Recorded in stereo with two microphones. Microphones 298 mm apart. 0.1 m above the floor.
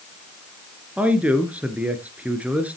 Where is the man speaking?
5° right (ahead or behind), 1.6 m.